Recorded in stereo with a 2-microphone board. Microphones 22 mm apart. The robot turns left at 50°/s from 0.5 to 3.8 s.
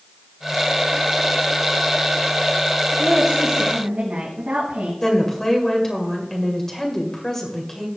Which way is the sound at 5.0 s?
20° left (ahead or behind).